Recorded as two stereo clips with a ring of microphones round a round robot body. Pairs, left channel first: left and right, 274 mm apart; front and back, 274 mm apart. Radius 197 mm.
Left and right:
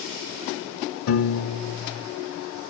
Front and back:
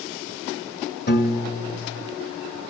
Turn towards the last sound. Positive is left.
turn(degrees=55)